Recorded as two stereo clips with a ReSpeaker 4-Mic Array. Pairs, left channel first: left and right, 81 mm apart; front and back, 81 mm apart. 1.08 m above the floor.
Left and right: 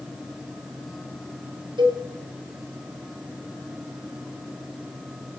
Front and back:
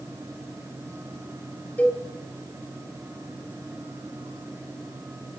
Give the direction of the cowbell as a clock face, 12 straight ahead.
2 o'clock.